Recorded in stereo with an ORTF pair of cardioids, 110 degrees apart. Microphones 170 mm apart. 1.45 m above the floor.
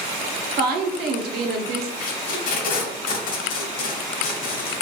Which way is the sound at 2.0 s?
55° left.